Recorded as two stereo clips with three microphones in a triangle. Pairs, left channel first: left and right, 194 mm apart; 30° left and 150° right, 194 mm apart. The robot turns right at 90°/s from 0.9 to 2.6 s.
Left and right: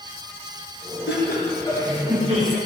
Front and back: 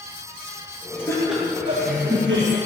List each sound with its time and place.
1.1 s laughter: 100° left, 5 m; by 2.6 s 120° right, 5 m